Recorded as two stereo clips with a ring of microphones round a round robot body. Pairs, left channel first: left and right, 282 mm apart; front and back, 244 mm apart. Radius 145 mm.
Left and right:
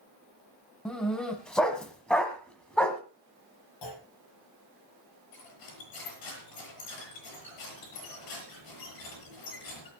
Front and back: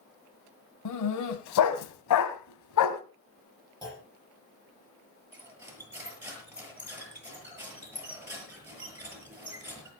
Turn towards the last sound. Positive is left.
turn(degrees=100)